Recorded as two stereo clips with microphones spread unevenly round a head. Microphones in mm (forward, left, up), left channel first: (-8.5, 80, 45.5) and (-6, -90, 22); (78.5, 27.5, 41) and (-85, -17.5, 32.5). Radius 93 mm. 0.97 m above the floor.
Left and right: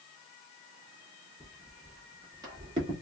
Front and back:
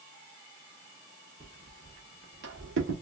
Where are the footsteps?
145° left, 1.0 m; by 2.9 s 155° right, 1.6 m.